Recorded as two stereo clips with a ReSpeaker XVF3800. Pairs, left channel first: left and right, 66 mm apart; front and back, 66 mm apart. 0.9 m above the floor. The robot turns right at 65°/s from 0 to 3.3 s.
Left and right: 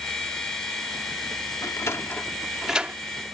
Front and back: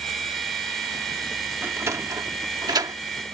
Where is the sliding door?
120° left; by 3.0 s 155° right.